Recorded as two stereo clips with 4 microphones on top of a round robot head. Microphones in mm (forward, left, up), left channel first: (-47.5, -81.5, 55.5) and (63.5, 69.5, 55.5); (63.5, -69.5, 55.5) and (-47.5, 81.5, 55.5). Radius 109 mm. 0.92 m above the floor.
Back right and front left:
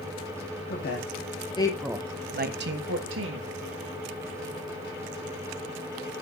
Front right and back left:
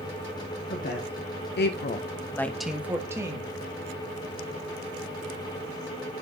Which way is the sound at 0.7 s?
90° right.